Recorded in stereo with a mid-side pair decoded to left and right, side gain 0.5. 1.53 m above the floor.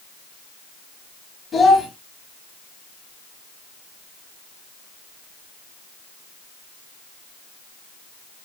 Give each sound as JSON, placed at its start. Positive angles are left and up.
{"t": 1.5, "sound": "a child speaking", "azimuth_deg": 45, "distance_m": 1.0}